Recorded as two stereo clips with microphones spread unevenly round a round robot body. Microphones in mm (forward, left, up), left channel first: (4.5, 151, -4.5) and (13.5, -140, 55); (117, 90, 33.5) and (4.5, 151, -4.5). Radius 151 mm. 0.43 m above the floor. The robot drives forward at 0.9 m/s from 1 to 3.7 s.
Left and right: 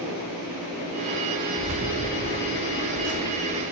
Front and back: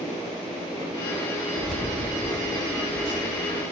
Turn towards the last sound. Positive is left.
turn(degrees=-100)